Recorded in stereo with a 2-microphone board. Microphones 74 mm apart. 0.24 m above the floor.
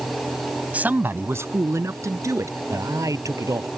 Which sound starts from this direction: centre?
A man speaking, at 0.7 s.